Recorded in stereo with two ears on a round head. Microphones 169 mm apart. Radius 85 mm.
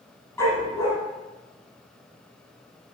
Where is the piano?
No piano in this recording.